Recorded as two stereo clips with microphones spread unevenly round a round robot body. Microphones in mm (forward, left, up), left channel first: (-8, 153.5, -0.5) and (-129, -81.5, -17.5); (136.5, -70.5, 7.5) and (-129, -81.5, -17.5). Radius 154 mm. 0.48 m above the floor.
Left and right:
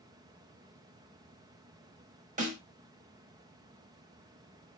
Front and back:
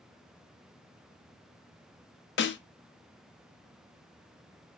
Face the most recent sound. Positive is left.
turn(degrees=-50)